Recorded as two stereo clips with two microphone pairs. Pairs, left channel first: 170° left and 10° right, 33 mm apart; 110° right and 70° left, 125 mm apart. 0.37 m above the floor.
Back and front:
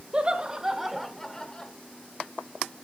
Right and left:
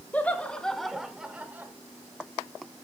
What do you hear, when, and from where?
0.1 s laughter: 40° right, 1.4 m; by 1.7 s 130° left, 1.3 m